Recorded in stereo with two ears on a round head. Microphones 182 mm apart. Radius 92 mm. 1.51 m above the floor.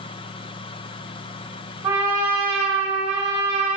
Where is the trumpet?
25° right (ahead or behind), 0.9 m.